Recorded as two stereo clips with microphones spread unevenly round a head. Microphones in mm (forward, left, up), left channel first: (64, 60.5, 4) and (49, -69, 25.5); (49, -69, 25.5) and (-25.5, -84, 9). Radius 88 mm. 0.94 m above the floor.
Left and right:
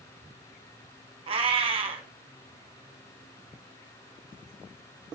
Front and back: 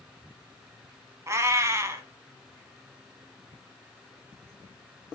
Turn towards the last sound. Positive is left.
turn(degrees=-115)